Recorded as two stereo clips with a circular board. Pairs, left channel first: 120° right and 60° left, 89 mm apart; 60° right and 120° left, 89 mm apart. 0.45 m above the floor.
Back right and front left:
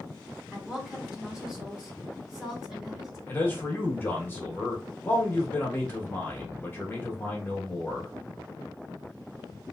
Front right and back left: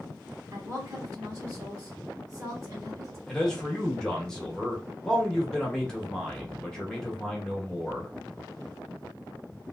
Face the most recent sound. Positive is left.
turn(degrees=-130)